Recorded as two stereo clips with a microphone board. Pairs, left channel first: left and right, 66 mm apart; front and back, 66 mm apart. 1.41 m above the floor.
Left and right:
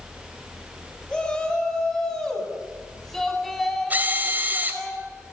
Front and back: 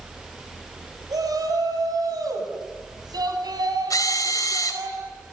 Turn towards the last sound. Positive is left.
turn(degrees=-25)